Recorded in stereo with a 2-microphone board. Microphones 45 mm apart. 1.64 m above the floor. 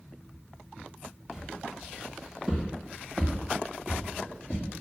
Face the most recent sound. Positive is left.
turn(degrees=30)  # may be behind; listen again after turning